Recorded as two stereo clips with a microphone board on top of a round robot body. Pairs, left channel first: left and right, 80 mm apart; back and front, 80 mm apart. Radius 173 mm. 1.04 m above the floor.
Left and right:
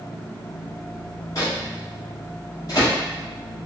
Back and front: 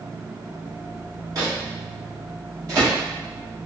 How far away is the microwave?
About 1.8 m.